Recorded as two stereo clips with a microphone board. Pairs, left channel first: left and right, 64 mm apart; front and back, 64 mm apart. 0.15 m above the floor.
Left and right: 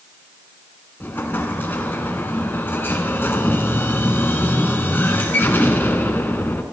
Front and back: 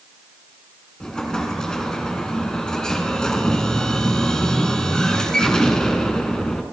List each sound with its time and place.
1.0 s an explosion: 65° left, 1.4 m